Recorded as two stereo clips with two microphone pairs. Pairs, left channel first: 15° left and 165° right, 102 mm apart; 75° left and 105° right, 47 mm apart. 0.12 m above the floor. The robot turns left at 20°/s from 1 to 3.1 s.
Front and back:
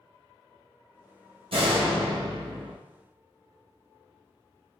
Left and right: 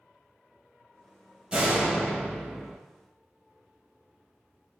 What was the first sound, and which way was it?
A door slam, 170° right.